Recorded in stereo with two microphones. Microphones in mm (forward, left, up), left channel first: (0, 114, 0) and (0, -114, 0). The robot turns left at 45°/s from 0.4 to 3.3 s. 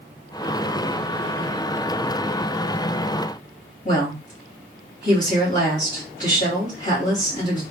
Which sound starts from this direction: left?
A woman speaking, at 3.9 s.